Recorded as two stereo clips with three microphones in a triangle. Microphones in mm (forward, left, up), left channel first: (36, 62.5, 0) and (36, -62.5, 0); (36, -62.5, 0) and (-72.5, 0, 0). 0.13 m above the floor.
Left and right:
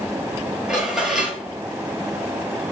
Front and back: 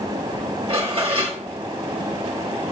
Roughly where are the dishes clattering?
Behind.